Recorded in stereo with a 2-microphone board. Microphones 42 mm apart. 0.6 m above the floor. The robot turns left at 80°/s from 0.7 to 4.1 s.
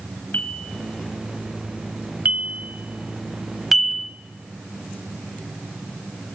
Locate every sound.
0.3 s a bell: 60° left (ahead or behind), 0.8 m; by 4.1 s 25° left (ahead or behind), 0.8 m